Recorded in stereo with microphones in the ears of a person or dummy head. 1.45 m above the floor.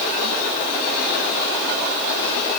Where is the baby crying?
No baby crying in this recording.